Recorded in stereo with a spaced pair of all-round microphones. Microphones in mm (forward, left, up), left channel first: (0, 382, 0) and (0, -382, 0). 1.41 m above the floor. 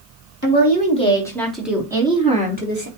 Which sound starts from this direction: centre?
A woman speaking, at 0.4 s.